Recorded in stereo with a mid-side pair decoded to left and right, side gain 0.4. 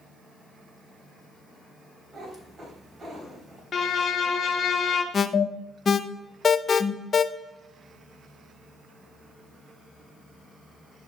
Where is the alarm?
45° left, 0.6 m.